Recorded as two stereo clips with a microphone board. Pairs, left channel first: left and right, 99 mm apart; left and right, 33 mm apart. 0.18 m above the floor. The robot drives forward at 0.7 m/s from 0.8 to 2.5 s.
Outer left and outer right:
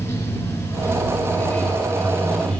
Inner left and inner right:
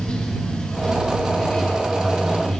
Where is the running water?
25° left (ahead or behind), 1.0 m; by 2.6 s 15° left (ahead or behind), 2 m.